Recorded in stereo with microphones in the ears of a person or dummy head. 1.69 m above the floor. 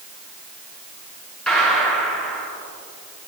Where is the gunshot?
Centre (ahead or behind), 1.5 m.